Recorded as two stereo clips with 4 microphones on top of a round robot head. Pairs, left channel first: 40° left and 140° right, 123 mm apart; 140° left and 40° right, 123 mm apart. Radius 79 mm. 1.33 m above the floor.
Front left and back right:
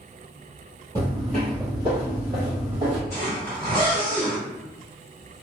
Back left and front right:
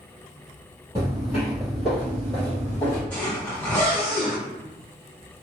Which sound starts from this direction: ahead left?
A zipper, at 3.1 s.